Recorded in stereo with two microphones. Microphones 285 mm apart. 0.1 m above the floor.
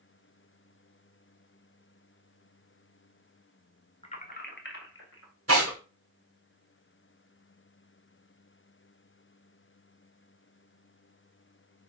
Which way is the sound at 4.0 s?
20° left (ahead or behind).